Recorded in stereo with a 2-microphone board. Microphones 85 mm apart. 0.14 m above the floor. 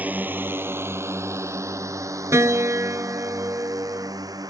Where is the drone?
20° right (ahead or behind); by 4.5 s 50° right (ahead or behind).